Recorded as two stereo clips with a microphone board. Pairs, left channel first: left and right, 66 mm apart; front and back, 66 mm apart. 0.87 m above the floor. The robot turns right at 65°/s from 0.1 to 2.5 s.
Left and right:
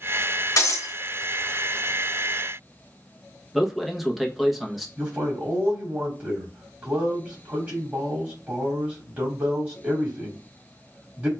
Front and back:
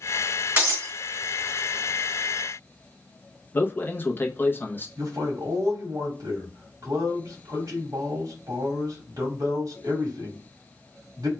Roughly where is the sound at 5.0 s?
Behind right.